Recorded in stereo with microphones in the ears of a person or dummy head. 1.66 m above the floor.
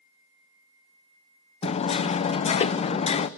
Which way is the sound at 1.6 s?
35° left (ahead or behind).